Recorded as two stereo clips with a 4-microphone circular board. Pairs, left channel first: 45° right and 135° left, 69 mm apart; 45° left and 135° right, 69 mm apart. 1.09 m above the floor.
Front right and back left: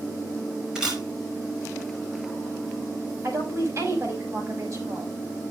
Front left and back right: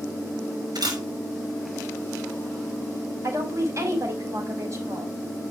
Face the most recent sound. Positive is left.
turn(degrees=180)